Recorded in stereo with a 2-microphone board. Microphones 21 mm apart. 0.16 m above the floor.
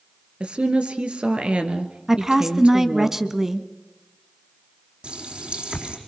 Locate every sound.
0.4 s a woman speaking: 65° right (ahead or behind), 2.5 m
2.1 s a woman speaking: 25° right (ahead or behind), 1.1 m
5.0 s a running tap: 60° right (ahead or behind), 4.5 m